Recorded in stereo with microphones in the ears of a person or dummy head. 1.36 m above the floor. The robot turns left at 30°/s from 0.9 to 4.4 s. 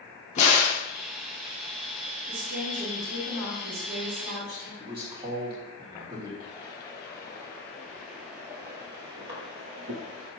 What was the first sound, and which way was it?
A crack, 40° left (ahead or behind).